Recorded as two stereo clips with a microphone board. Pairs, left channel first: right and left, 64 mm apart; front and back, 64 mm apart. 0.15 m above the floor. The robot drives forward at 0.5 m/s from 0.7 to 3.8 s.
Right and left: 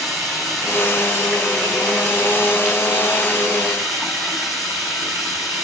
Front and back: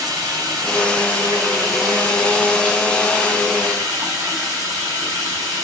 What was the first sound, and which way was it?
Running water, straight behind.